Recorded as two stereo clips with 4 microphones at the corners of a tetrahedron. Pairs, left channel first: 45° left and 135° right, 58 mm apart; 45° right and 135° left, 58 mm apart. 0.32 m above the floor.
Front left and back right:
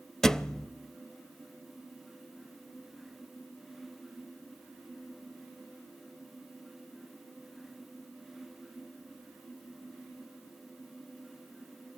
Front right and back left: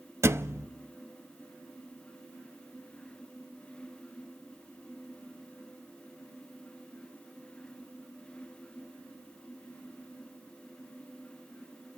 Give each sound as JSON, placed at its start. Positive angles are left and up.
{"t": 0.2, "sound": "a thud", "azimuth_deg": 125, "distance_m": 0.7}